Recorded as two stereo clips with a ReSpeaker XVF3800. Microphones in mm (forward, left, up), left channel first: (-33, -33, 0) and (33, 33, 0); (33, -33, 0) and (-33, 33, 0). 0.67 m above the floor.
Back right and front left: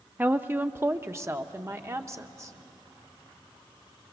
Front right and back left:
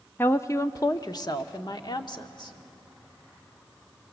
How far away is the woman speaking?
About 0.6 m.